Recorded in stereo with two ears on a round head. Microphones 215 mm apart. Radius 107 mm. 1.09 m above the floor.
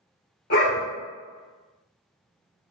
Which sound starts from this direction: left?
A dog barking, at 0.5 s.